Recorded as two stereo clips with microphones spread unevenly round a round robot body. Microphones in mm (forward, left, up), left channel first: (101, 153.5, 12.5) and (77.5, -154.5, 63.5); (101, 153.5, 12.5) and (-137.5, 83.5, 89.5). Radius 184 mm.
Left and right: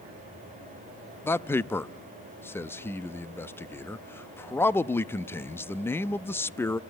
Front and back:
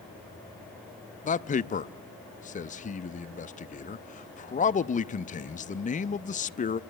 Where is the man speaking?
15° left, 0.6 m.